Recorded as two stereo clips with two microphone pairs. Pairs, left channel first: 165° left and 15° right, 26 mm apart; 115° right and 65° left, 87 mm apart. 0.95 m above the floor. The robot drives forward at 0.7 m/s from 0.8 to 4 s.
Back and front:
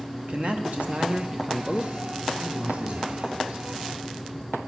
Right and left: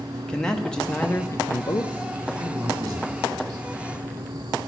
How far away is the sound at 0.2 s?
About 0.7 m.